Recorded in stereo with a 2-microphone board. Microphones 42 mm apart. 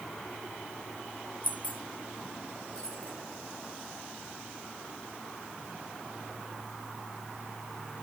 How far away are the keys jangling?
About 1.0 m.